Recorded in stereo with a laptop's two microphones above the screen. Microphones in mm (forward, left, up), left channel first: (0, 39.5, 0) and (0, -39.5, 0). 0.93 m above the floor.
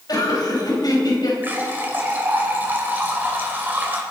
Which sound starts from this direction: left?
Laughter, at 0.1 s.